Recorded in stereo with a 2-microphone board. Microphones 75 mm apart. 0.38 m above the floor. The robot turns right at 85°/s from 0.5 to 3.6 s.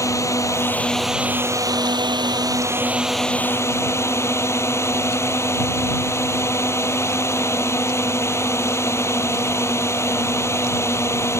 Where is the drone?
135° left; by 11.4 s 40° left.